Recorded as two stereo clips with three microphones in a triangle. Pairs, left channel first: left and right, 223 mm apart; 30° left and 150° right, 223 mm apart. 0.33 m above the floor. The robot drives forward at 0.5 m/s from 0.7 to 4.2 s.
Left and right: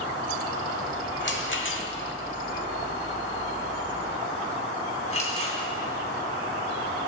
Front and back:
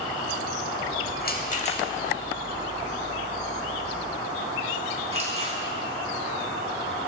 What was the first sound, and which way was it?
A rattle, 65° left.